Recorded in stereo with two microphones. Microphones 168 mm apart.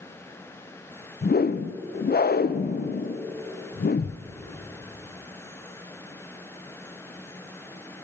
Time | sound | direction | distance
1.2 | a whoosh | 60° left (ahead or behind) | 0.5 m